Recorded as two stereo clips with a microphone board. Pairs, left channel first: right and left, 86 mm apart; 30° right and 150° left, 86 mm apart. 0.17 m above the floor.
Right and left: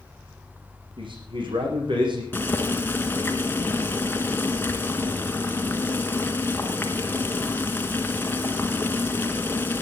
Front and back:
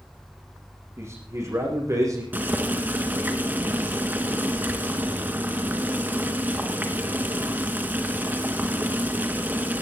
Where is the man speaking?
95° left, 7.5 m; by 2.2 s 105° left, 7 m.